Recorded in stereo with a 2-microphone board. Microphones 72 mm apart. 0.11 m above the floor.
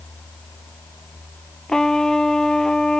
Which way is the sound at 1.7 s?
5° left (ahead or behind).